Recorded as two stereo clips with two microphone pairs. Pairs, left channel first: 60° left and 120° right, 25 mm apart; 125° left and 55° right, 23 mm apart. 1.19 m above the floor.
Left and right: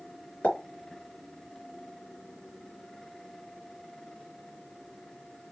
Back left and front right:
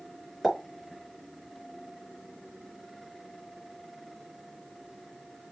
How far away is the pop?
About 4.5 m.